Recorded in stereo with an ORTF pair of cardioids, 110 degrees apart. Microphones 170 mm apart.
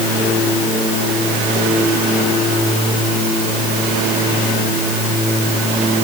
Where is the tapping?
No tapping in this recording.